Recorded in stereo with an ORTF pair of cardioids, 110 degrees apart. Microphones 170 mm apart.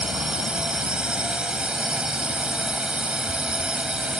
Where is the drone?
5° right.